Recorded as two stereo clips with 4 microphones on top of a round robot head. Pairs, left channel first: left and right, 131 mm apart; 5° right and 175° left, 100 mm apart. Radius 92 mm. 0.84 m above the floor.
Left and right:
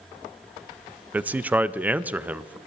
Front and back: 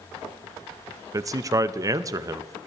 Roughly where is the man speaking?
Behind.